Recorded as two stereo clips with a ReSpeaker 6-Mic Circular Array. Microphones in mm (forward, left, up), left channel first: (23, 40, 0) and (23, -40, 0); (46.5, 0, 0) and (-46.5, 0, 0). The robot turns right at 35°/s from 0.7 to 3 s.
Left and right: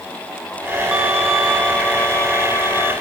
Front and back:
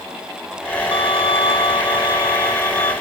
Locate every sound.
0.9 s a violin: 15° right, 1.9 m; by 2.9 s 55° left, 1.9 m